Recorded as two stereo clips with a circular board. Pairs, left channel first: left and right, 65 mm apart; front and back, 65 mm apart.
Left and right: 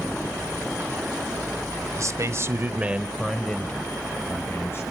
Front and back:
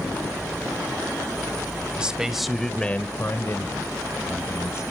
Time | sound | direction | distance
2.0 | a man speaking | 110° right | 1.6 m